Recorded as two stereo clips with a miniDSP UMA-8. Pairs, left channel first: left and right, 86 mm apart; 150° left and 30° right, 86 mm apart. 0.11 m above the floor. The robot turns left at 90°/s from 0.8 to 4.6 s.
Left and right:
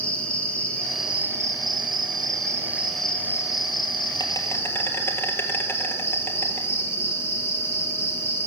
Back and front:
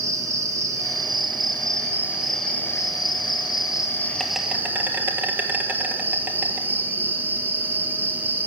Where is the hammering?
No hammering in this recording.